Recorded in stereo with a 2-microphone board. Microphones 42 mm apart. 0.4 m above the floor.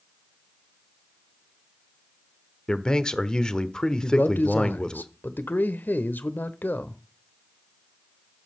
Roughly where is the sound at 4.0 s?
Left.